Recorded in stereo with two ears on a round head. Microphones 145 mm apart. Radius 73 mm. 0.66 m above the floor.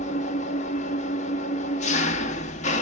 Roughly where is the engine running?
Left.